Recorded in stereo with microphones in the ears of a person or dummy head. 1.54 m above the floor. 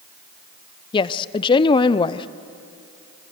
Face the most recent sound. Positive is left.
turn(degrees=25)  # may be behind; listen again after turning